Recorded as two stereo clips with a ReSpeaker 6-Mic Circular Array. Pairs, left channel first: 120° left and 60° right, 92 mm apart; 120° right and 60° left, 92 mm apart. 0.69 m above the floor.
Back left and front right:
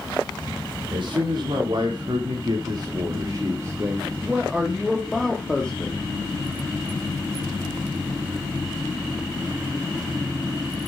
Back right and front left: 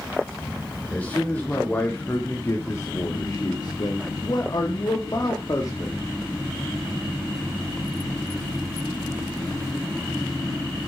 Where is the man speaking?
45° right, 2 m; by 6.0 s 165° right, 1.7 m.